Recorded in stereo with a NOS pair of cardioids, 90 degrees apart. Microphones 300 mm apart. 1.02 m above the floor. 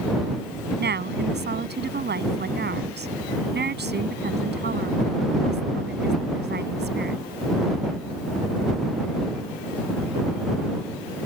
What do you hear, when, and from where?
0.8 s a woman speaking: 35° right